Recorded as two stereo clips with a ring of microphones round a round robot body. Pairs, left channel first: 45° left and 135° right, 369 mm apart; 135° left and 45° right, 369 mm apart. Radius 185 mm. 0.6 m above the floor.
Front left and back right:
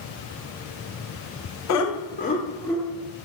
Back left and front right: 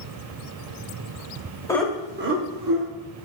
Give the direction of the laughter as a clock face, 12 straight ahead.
10 o'clock.